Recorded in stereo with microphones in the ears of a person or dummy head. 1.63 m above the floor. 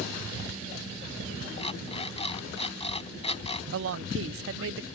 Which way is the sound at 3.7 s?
70° right (ahead or behind).